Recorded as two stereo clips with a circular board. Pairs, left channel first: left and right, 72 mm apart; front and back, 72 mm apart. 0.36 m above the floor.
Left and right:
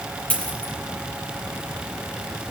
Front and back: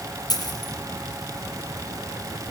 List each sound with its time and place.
0.3 s a dropped coin: 15° left, 5.5 m